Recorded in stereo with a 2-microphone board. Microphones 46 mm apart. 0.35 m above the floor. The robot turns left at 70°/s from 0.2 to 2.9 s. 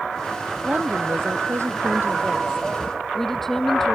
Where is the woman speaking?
30° right; by 4.0 s 175° left.